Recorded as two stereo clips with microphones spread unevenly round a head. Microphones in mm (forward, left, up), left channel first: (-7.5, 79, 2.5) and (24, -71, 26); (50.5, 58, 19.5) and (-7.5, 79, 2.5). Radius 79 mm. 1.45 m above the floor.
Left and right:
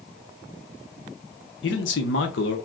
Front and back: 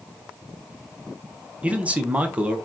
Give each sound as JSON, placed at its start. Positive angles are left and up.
{"t": 1.6, "sound": "a man speaking", "azimuth_deg": 90, "distance_m": 1.0}